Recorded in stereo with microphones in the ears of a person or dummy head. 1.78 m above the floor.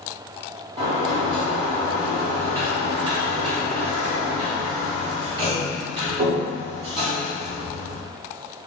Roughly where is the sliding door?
Right.